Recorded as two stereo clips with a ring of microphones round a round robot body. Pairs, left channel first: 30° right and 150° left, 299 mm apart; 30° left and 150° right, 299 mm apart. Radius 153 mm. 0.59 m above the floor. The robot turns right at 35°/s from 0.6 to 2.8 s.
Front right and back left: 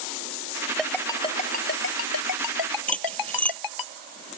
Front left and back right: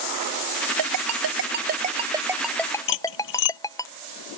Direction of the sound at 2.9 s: 55° left.